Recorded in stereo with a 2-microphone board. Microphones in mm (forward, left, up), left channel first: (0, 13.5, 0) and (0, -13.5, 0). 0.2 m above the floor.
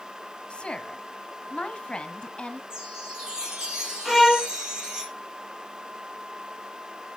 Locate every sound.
0.5 s a woman speaking: 40° left (ahead or behind), 1.3 m
2.7 s a chime: 20° right (ahead or behind), 4 m
4.0 s a violin: 10° right (ahead or behind), 1.6 m